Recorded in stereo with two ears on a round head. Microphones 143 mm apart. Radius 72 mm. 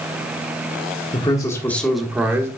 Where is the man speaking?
30° left (ahead or behind), 1.3 m; by 2.5 s 15° right (ahead or behind), 1.5 m.